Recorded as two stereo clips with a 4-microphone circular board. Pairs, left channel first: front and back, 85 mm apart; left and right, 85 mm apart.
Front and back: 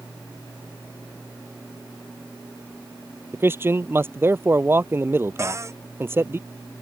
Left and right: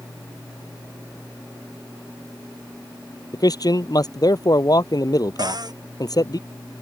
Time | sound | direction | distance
3.3 | a man speaking | 120° left | ?
5.4 | a cupboard door | 125° right | ?